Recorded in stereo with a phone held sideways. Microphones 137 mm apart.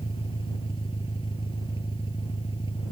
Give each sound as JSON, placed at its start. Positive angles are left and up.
{"t": 0.0, "sound": "an engine running", "side_deg": 35}